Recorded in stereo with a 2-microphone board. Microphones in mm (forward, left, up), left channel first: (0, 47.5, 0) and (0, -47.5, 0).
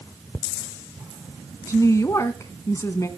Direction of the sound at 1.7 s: 35° left (ahead or behind).